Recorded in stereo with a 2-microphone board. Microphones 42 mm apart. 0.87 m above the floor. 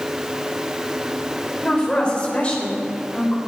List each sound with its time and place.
1.6 s a woman speaking: 20° left (ahead or behind), 3.5 m; by 3.4 s 35° left (ahead or behind), 4 m